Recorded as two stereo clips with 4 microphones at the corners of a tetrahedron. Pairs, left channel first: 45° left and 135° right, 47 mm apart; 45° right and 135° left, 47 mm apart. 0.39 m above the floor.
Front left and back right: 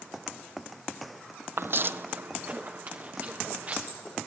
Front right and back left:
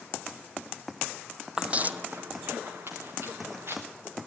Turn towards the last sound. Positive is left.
turn(degrees=165)